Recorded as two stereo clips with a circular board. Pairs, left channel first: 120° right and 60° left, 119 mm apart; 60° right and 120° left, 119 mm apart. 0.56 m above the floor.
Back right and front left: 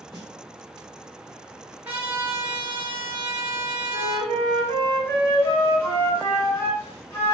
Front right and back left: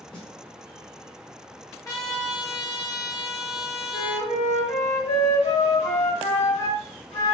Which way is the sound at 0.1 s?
25° right.